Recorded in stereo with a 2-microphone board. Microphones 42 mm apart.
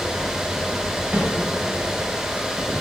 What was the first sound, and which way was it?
A snare drum, 30° right (ahead or behind).